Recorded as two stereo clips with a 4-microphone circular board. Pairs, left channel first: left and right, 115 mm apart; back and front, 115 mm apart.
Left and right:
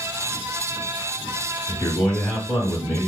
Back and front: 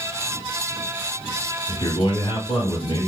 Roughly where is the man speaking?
Behind.